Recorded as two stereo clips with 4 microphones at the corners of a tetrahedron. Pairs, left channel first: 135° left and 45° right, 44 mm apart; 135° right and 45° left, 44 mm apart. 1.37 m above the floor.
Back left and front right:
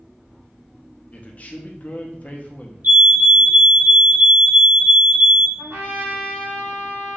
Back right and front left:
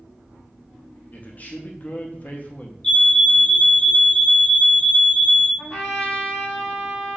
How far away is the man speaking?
About 0.6 m.